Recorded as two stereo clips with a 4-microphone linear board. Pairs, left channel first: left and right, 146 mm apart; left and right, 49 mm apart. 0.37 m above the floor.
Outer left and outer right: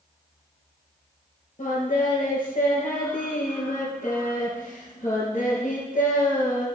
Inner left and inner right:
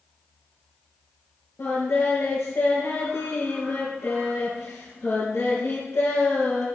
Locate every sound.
1.6 s singing: 60° left (ahead or behind), 5.5 m